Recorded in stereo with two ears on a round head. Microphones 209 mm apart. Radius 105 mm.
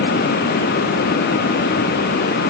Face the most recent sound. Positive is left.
No sound to turn to.